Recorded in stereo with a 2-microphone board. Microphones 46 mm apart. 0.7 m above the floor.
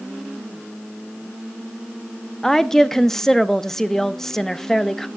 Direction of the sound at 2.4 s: 10° left (ahead or behind).